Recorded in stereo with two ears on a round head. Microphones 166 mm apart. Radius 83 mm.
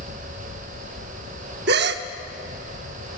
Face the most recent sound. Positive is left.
turn(degrees=-60)  # may be behind; listen again after turning